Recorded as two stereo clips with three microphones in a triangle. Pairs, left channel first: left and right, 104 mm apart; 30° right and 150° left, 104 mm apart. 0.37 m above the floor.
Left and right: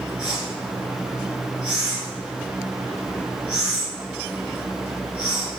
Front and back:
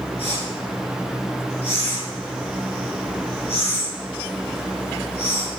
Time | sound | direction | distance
0.2 | a whoosh | 10° right | 4 m